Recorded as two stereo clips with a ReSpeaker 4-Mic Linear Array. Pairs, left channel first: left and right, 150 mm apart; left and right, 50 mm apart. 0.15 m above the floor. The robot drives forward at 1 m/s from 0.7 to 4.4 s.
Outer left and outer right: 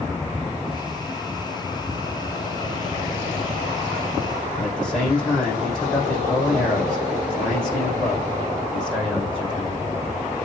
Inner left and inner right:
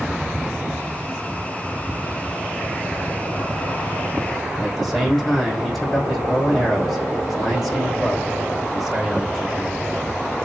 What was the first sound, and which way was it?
A man speaking, 5° left (ahead or behind).